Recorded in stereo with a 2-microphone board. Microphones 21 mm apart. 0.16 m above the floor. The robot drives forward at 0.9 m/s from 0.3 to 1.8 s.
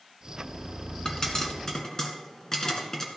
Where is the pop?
30° left (ahead or behind), 1.7 m; by 3.1 s 25° left (ahead or behind), 2 m.